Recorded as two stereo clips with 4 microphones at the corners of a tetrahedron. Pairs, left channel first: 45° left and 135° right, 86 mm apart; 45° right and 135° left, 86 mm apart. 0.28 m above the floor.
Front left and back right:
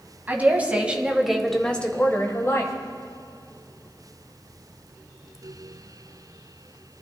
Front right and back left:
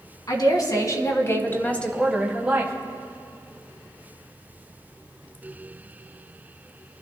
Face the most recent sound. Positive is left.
turn(degrees=75)